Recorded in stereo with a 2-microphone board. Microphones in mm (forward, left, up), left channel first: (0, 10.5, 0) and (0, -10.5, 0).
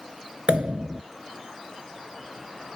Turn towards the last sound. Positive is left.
turn(degrees=-60)  # may be behind; listen again after turning